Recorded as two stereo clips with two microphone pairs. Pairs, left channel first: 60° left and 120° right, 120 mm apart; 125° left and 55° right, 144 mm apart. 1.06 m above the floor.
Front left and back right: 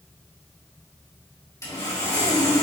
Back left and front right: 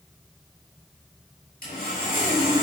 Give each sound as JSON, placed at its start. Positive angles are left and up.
{"t": 1.6, "sound": "sawing", "azimuth_deg": 125, "distance_m": 6.5}